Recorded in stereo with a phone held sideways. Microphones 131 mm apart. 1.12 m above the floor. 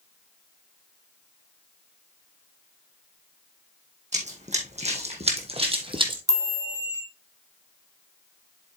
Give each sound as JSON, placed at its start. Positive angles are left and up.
{"t": 4.1, "sound": "running footsteps", "side_deg": -60, "distance_m": 2.0}
{"t": 6.3, "sound": "a chime", "side_deg": -30, "distance_m": 2.0}